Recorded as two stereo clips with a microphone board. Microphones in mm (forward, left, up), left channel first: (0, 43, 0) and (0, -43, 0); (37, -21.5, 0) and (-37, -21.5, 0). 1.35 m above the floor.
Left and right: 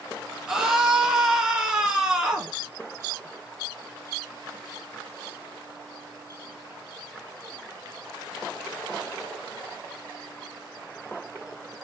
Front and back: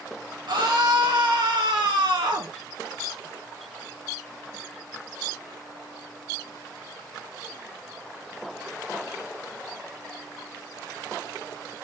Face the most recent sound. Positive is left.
turn(degrees=-170)